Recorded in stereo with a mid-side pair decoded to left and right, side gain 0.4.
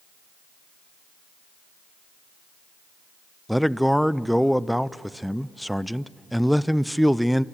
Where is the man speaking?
Straight ahead, 0.6 m.